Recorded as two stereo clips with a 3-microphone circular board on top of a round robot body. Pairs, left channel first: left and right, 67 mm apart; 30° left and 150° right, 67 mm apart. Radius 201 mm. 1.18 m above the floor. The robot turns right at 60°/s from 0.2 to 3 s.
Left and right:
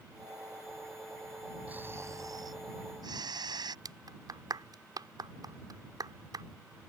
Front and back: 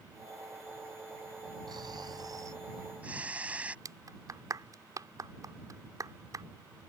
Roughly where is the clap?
Behind right.